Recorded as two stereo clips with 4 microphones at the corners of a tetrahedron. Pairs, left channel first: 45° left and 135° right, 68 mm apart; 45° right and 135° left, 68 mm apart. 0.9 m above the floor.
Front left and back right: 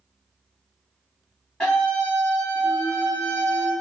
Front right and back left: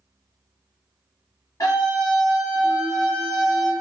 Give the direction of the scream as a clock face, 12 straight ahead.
1 o'clock.